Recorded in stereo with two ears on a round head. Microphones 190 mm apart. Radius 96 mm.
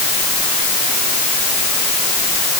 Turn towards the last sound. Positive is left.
No sound to turn to.